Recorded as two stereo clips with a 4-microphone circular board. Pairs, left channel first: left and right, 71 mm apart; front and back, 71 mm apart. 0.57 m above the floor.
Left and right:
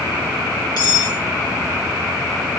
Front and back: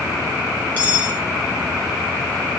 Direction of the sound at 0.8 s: 110° left.